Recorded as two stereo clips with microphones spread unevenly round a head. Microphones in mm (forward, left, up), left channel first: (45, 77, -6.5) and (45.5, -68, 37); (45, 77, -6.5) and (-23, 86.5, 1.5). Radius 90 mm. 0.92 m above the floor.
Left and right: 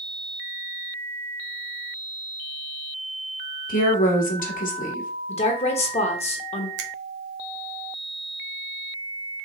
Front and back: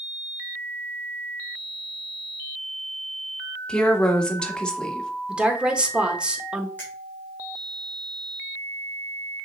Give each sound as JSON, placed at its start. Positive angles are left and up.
{"t": 3.7, "sound": "a woman speaking", "azimuth_deg": 70, "distance_m": 1.6}
{"t": 5.3, "sound": "a woman speaking", "azimuth_deg": 95, "distance_m": 1.3}
{"t": 6.8, "sound": "a finger snap", "azimuth_deg": -85, "distance_m": 0.8}